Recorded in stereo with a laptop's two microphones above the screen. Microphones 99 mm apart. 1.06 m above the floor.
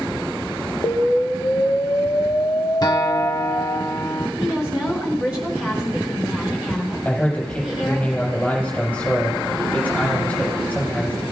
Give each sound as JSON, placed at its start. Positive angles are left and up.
{"t": 0.8, "sound": "an explosion", "side_deg": 30, "distance_m": 0.5}
{"t": 2.8, "sound": "a guitar", "side_deg": 40, "distance_m": 1.1}
{"t": 4.4, "sound": "a woman speaking", "side_deg": -15, "distance_m": 3.5}
{"t": 7.0, "sound": "a man speaking", "side_deg": 10, "distance_m": 4.5}